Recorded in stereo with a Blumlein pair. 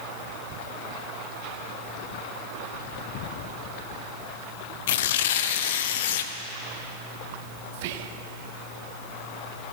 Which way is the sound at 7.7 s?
50° right.